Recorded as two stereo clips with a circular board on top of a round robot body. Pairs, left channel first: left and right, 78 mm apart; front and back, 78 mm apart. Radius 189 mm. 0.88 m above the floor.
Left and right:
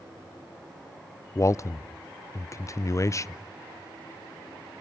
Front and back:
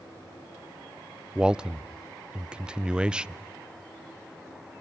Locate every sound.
1.4 s a man speaking: 110° left, 0.6 m